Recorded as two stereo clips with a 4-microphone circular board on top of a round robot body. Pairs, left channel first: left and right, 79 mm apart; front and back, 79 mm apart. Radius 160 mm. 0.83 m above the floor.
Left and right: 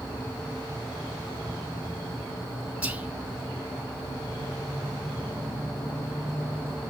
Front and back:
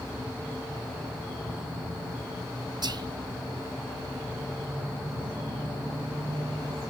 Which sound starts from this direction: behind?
Whispering, at 2.8 s.